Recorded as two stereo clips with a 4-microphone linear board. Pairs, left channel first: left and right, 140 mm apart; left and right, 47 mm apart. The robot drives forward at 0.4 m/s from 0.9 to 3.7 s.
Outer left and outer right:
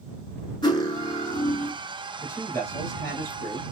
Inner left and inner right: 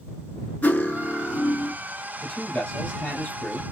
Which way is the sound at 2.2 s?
20° left (ahead or behind).